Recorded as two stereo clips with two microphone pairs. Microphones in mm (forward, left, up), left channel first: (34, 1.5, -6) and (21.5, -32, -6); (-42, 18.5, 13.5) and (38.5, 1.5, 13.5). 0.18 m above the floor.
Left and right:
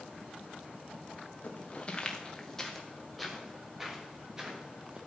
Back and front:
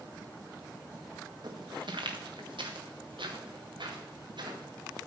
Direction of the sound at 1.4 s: 15° left.